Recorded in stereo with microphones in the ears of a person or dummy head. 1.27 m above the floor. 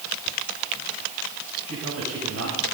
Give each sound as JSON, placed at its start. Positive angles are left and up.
{"t": 1.7, "sound": "a man speaking", "side_deg": -80, "distance_m": 7.0}